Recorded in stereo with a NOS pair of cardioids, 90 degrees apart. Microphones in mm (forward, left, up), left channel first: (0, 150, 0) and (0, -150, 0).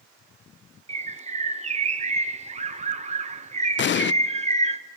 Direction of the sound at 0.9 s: 25° right.